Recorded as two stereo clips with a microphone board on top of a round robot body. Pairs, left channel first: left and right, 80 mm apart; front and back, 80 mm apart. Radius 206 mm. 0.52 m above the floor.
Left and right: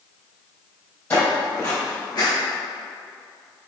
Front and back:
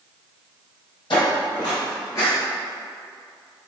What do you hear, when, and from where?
1.1 s footsteps: 20° left, 1.4 m; by 2.3 s 55° left, 0.6 m